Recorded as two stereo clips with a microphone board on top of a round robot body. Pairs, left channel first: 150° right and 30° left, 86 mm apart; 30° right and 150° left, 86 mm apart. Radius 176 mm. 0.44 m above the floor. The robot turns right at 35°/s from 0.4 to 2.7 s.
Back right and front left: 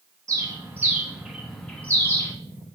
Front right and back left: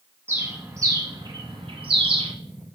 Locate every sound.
0.3 s a bird: 85° left, 1.3 m; by 2.3 s 155° left, 1.3 m